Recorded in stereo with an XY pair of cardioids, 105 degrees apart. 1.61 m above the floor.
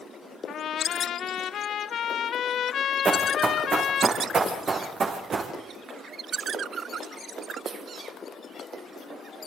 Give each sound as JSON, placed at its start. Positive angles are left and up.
{"t": 0.5, "sound": "a trumpet", "azimuth_deg": 60, "distance_m": 1.5}
{"t": 3.0, "sound": "running footsteps", "azimuth_deg": -45, "distance_m": 5.5}